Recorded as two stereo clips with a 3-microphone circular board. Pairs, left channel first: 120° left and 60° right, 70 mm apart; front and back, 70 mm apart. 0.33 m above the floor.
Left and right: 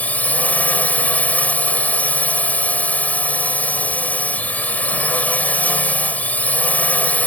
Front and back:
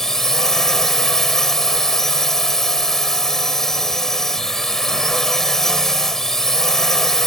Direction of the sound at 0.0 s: 80° left.